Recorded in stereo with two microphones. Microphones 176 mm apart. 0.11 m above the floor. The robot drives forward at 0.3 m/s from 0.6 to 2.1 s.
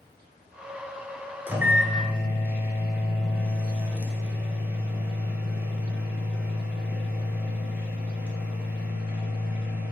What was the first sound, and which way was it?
A microwave, 10° right (ahead or behind).